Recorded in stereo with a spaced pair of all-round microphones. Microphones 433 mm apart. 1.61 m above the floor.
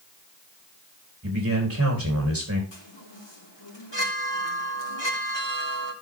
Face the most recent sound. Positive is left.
turn(degrees=75)  # may be behind; listen again after turning